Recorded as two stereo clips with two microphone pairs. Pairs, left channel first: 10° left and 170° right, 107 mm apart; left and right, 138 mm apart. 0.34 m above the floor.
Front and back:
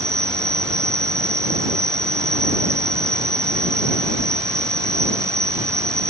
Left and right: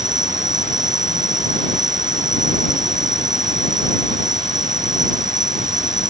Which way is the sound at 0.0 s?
110° right.